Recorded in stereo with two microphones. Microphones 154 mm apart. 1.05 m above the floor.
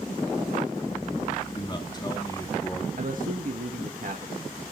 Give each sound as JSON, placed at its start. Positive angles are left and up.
{"t": 1.5, "sound": "a man speaking", "side_deg": 30, "distance_m": 3.0}
{"t": 3.0, "sound": "a man speaking", "side_deg": -65, "distance_m": 1.6}